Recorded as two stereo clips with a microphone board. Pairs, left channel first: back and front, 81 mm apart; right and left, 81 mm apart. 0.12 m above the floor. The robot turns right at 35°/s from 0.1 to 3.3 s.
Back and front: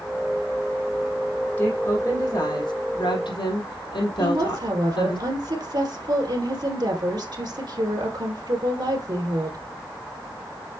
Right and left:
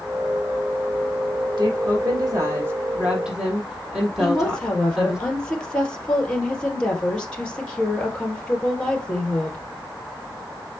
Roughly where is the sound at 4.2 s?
Ahead.